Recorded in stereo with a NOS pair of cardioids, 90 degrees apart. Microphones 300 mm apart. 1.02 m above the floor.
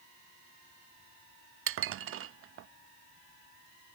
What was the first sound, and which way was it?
Dishes clattering, 50° right.